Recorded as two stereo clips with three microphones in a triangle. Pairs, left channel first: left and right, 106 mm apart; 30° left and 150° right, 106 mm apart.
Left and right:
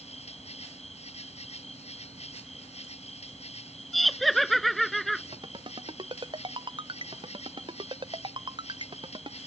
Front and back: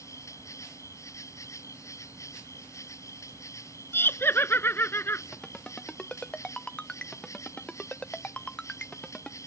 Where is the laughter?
5° left.